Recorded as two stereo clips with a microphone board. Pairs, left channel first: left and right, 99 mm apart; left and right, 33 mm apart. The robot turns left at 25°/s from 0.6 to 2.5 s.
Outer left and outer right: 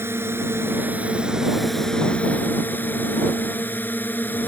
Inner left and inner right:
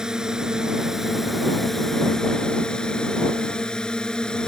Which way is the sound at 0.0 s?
155° right.